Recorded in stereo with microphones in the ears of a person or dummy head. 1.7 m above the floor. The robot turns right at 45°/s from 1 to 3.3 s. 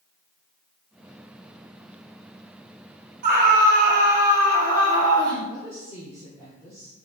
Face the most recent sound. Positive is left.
turn(degrees=-15)  # may be behind; listen again after turning